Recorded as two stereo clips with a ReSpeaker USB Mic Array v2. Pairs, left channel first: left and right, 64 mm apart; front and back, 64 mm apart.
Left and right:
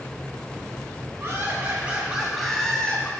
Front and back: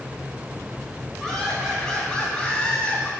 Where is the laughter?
85° right, 1.5 m; by 3.1 s 50° left, 1.4 m.